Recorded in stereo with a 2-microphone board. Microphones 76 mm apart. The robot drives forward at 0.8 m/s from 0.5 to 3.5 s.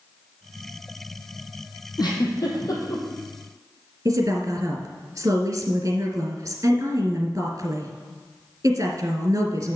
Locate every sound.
2.0 s a giggle: 65° left (ahead or behind), 3 m; by 3.0 s 50° left (ahead or behind), 3 m
4.0 s a woman speaking: 45° right (ahead or behind), 2.5 m